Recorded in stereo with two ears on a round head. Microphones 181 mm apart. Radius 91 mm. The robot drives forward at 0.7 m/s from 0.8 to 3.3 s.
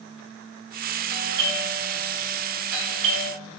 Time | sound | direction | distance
1.1 | a doorbell | 55° right (ahead or behind) | 4.5 m